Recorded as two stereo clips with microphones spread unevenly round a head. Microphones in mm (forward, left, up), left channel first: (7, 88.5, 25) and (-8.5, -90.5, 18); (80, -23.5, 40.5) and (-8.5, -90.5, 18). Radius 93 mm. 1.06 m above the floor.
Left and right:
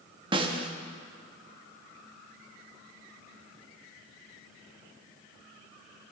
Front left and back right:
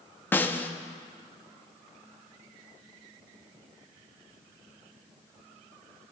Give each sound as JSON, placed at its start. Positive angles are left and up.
{"t": 0.3, "sound": "a snare drum", "azimuth_deg": -30, "distance_m": 0.7}